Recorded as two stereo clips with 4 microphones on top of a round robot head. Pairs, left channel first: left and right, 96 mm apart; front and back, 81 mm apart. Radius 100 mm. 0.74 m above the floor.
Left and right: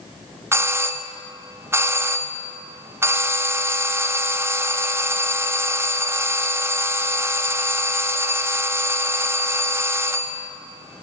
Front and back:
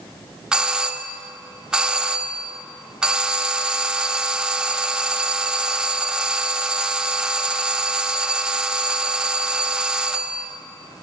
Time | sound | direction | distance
0.5 | a doorbell | 110° right | 1.0 m